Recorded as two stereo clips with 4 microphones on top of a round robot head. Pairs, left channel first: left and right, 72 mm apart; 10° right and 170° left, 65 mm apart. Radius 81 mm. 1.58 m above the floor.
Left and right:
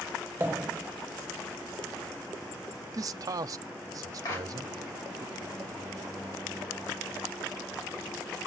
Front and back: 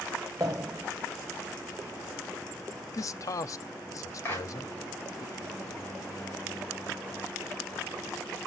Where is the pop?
135° right, 0.6 m.